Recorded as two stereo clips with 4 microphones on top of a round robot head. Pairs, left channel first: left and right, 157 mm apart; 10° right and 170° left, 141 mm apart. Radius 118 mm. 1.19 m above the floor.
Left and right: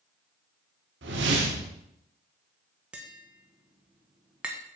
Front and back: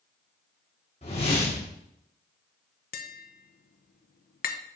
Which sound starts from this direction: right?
A whoosh, at 1.0 s.